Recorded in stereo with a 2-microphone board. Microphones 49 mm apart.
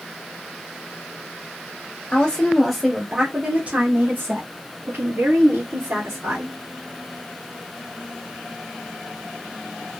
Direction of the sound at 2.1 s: 20° left (ahead or behind).